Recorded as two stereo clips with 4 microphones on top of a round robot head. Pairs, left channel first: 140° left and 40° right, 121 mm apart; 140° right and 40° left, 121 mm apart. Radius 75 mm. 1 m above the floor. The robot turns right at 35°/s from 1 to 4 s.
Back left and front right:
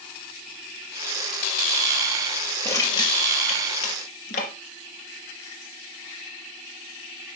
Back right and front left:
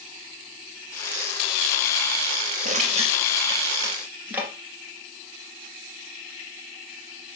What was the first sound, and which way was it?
Crushing, 70° left.